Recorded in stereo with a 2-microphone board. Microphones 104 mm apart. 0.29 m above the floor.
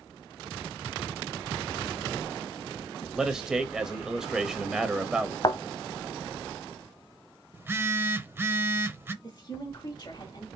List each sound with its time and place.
3.1 s a man speaking: 5° right (ahead or behind), 0.9 m
5.4 s a thud: 45° left (ahead or behind), 0.8 m
7.5 s a phone buzzing: 25° right (ahead or behind), 0.6 m
9.2 s a woman speaking: 40° left (ahead or behind), 1.1 m